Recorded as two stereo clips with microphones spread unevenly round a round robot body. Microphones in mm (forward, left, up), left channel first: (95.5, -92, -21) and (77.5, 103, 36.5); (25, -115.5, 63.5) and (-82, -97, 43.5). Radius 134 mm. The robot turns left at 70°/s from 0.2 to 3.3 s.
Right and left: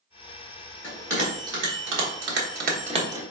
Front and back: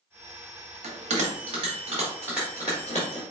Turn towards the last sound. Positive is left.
turn(degrees=15)